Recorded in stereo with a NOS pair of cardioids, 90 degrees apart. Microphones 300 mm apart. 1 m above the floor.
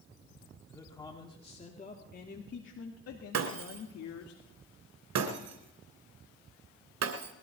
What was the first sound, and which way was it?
A man speaking, 10° left.